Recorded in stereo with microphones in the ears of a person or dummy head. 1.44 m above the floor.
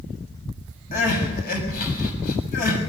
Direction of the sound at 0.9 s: 50° left (ahead or behind).